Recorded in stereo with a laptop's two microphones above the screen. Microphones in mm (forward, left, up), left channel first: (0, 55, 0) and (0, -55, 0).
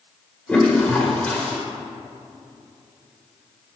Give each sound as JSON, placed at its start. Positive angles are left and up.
{"t": 0.5, "sound": "a toilet flushing", "side_deg": 15, "distance_m": 1.5}